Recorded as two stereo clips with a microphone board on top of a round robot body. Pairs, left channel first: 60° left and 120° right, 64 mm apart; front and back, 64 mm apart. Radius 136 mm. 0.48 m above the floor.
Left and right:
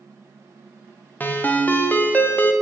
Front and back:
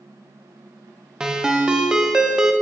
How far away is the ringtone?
About 0.6 m.